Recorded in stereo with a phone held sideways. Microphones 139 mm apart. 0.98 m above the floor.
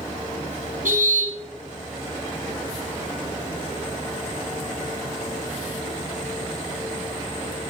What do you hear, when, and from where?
0.8 s a car horn: 80° right, 4 m